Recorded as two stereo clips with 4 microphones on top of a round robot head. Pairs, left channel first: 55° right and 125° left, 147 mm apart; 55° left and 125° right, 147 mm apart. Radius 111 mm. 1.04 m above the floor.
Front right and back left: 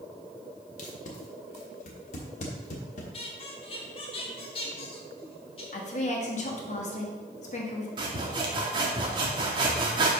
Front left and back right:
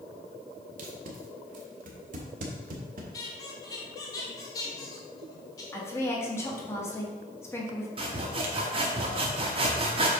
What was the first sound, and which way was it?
Tape being pulled, 95° right.